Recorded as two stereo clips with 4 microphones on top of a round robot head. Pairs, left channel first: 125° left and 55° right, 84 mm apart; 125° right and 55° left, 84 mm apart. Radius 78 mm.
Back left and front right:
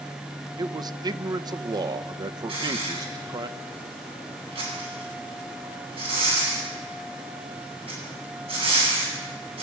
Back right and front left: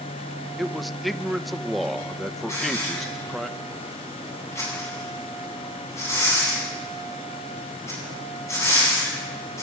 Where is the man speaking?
35° right, 1.0 m.